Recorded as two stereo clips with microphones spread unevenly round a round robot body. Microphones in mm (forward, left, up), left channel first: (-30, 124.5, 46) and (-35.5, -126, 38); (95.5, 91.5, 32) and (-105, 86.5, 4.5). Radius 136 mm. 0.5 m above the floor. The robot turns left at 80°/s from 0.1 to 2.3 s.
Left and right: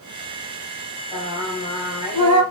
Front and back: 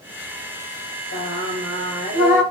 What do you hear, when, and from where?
1.1 s singing: straight ahead, 3.5 m; by 2.4 s 95° right, 3.5 m